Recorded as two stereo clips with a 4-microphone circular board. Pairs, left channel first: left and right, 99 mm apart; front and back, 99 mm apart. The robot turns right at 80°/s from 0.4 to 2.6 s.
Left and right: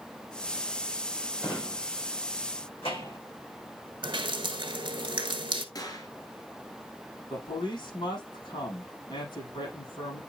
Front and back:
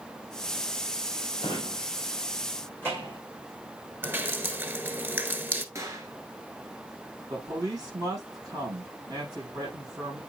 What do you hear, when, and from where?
1.4 s a drawer: 15° left, 5 m; by 3.2 s 115° left, 5 m
4.0 s dripping: 115° right, 0.9 m
5.8 s a gunshot: 130° left, 1.8 m
7.3 s a man speaking: 130° left, 6 m